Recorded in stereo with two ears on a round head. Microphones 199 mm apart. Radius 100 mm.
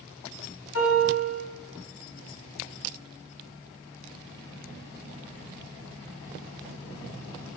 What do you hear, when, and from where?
0.7 s a piano: 80° left, 2 m